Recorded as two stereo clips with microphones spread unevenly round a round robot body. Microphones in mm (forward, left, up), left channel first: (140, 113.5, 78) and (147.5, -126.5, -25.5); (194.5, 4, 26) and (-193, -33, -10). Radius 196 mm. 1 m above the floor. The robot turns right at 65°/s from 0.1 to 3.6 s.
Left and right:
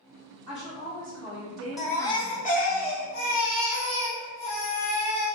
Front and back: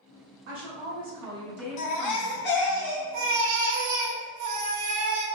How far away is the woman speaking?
About 2.0 m.